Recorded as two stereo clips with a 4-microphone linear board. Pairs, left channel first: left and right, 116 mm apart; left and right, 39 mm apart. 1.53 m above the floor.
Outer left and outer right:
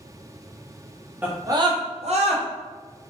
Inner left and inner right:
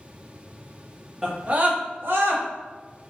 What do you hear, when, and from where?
1.2 s a scream: 15° right (ahead or behind), 0.6 m; by 2.4 s 75° right (ahead or behind), 0.9 m